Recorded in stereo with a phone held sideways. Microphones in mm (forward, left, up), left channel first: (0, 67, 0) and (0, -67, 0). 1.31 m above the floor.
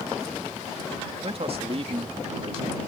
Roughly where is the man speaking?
Right.